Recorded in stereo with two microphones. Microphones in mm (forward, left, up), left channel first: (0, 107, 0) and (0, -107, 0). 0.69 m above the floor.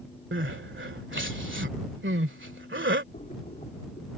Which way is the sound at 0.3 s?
65° right (ahead or behind).